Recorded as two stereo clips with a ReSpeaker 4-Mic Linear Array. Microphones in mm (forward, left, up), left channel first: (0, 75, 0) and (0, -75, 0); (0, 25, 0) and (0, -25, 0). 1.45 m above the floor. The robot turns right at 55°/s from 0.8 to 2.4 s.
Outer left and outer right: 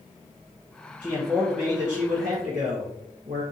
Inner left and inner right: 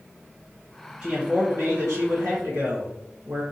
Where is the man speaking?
150° right, 1.4 m; by 3.4 s 75° right, 1.4 m.